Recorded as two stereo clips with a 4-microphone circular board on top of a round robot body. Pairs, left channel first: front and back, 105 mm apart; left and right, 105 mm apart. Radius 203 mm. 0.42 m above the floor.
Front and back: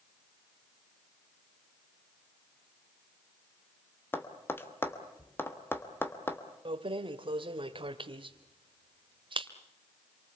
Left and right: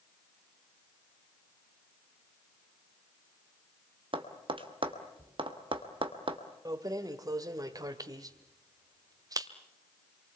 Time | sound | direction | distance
4.1 | tapping | 65° right | 2.5 m
6.7 | keys jangling | 145° right | 1.6 m